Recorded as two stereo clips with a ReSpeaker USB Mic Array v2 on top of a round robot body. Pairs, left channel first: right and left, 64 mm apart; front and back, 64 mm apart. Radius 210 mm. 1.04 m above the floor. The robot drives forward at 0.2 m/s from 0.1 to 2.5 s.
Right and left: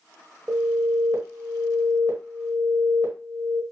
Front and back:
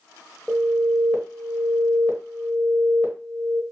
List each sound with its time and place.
0.5 s an alarm: 90° left, 1.1 m; by 3.6 s 115° left, 1.2 m